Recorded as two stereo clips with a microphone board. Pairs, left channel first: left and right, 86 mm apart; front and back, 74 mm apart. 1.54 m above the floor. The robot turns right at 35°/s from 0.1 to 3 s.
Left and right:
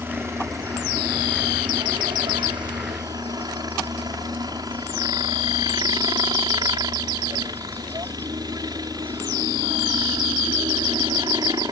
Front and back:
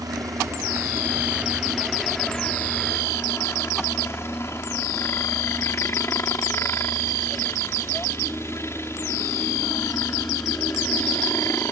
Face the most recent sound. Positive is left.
turn(degrees=-50)